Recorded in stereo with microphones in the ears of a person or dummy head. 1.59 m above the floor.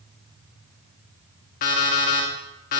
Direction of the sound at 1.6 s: 45° left (ahead or behind).